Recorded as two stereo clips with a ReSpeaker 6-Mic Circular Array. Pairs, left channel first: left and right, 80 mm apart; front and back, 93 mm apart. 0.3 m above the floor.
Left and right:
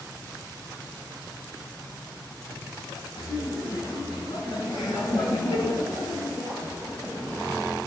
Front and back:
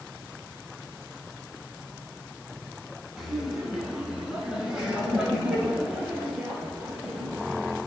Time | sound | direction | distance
3.2 | laughter | 95° left | 3 m